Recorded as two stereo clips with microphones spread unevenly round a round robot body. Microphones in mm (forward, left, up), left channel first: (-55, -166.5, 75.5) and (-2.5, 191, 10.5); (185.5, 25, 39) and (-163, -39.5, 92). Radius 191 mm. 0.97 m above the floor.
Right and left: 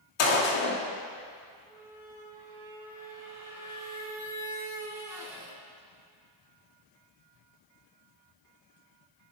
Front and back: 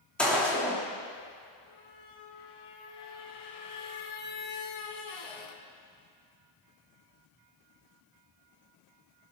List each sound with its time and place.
0.2 s a gunshot: 75° right, 3 m
1.7 s a squeak: 5° right, 2.0 m